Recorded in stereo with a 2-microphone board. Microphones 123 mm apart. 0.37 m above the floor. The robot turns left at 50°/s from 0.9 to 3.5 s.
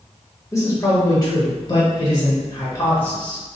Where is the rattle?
No rattle in this recording.